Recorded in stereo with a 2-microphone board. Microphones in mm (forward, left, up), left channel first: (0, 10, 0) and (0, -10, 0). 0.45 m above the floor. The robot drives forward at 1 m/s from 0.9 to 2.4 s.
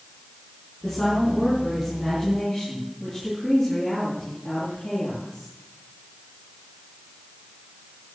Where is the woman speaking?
25° left (ahead or behind), 5.5 m; by 5.5 s 20° left (ahead or behind), 7 m.